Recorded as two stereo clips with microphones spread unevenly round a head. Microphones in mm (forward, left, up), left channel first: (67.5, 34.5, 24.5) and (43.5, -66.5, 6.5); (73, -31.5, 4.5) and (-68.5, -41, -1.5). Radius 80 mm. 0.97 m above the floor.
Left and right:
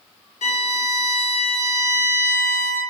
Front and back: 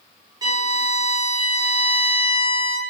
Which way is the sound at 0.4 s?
115° left.